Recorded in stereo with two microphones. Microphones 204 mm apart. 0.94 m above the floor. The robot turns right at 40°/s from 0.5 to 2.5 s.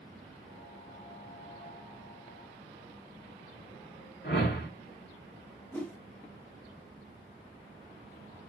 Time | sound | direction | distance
4.2 | a whoosh | 55° left (ahead or behind) | 1.4 m
5.7 | a whoosh | 5° left (ahead or behind) | 0.6 m